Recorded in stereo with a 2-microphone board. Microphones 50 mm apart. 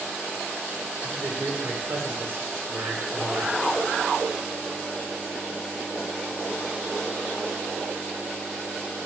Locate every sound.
1.0 s a man speaking: 55° right (ahead or behind), 2.0 m